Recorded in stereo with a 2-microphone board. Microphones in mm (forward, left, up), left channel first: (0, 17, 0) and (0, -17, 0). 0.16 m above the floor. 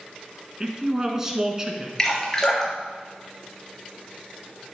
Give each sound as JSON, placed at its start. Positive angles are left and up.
{"t": 0.6, "sound": "a man speaking", "side_deg": -15, "distance_m": 1.6}
{"t": 2.0, "sound": "dripping", "side_deg": 20, "distance_m": 3.5}